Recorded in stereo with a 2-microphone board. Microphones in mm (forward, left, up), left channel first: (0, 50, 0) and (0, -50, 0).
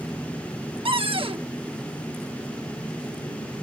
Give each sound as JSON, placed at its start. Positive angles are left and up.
{"t": 0.8, "sound": "a cupboard door", "side_deg": -65}